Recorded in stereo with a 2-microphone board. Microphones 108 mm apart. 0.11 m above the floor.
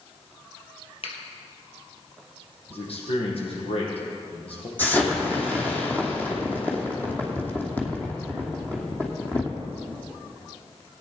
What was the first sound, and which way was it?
A finger snap, 60° left (ahead or behind).